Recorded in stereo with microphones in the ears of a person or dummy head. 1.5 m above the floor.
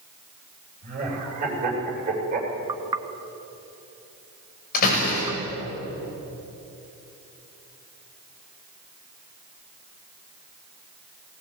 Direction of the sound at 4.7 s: 45° left (ahead or behind).